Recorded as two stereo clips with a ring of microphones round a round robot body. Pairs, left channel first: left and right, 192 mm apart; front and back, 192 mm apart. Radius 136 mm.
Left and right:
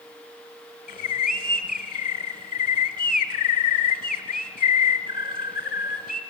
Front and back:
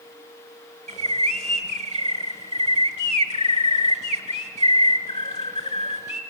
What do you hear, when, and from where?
0.9 s a bird: 50° left, 1.3 m